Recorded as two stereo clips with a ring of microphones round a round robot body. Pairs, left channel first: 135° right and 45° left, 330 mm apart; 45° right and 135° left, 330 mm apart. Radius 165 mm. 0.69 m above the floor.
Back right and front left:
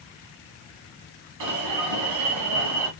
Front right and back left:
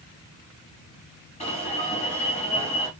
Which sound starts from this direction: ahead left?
An alarm, at 1.4 s.